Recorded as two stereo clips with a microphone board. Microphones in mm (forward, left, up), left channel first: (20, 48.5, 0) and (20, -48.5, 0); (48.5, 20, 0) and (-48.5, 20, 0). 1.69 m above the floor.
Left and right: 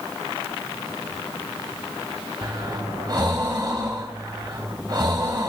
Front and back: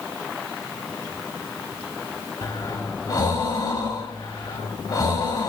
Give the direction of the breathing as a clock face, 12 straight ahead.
2 o'clock.